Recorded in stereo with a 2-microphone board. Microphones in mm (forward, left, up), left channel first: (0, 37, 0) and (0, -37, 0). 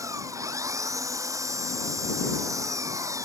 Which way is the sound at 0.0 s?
45° right (ahead or behind).